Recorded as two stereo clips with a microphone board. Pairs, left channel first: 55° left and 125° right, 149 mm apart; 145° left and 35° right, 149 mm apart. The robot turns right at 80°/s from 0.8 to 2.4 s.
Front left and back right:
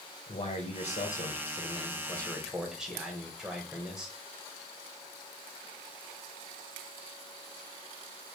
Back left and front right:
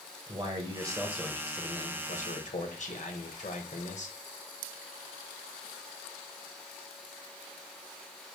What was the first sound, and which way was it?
A man speaking, 20° left.